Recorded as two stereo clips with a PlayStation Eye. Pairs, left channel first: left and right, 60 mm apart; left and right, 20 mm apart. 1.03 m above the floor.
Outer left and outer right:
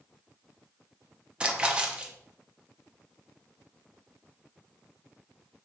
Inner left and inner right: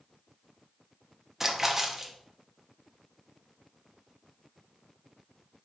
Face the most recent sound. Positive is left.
turn(degrees=-15)  # may be behind; listen again after turning